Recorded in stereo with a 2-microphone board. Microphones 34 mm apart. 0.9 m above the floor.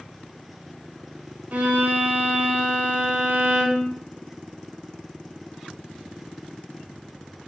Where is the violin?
45° right (ahead or behind), 0.8 m.